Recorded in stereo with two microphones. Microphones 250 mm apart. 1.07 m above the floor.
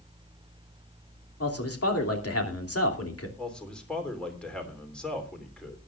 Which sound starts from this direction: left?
A man speaking, at 1.4 s.